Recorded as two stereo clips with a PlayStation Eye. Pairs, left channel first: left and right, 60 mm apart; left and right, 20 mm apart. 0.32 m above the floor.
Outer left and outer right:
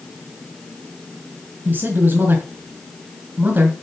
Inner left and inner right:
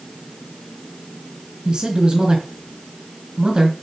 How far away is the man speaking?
About 3.5 m.